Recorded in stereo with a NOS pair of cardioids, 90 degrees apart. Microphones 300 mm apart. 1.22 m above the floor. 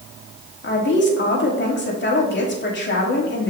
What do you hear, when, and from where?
0.6 s a woman speaking: 35° left, 2.5 m